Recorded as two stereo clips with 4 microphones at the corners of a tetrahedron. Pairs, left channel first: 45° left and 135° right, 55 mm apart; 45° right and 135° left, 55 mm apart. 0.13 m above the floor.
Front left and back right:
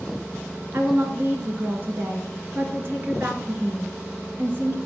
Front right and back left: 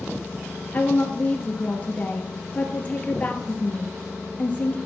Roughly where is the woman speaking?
Right.